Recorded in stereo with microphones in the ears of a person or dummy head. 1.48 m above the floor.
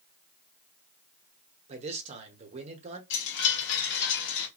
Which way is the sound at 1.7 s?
35° right (ahead or behind).